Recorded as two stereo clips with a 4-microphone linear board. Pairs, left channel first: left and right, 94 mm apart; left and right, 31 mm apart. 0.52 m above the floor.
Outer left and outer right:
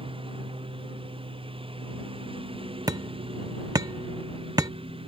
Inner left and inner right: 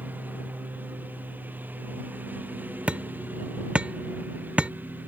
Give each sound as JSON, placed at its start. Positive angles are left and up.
{"t": 0.0, "sound": "a lawn mower", "side_deg": -70}
{"t": 2.9, "sound": "hammering", "side_deg": -45}